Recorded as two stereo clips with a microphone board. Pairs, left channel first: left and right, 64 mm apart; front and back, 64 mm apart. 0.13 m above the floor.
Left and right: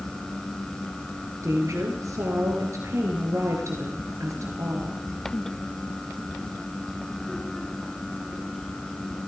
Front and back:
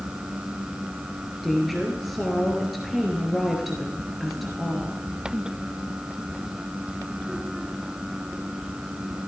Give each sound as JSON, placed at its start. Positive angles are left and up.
{"t": 1.4, "sound": "a woman speaking", "azimuth_deg": -90, "distance_m": 2.0}